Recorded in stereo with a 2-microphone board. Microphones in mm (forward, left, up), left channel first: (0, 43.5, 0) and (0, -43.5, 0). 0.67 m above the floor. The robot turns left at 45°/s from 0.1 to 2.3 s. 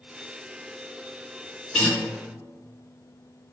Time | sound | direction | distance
1.7 | a guitar | 10° left (ahead or behind) | 1.3 m